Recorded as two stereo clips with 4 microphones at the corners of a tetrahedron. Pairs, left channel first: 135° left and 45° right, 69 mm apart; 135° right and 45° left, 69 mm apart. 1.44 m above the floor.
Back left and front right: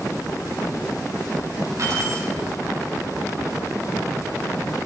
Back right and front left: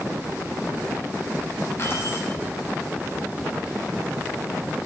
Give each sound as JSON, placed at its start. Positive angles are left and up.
{"t": 1.8, "sound": "keys jangling", "azimuth_deg": -85, "distance_m": 8.0}